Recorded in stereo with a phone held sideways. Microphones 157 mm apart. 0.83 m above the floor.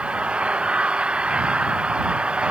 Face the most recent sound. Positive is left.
turn(degrees=-5)  # may be behind; listen again after turning